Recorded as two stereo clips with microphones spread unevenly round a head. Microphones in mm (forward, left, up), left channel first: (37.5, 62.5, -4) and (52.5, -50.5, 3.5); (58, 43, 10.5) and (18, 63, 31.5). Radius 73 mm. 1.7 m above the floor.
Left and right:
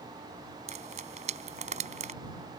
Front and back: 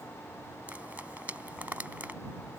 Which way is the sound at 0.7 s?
130° right.